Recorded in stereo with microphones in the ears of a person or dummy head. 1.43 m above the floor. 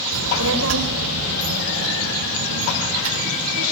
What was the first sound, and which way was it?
A child speaking, 80° right.